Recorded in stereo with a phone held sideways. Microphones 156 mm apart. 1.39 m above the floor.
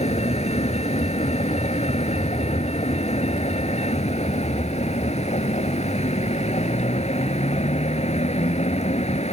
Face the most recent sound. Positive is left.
turn(degrees=45)  # may be behind; listen again after turning